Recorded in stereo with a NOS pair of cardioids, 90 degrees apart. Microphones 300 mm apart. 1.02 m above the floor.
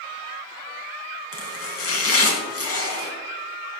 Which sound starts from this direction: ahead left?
Chopping, at 1.3 s.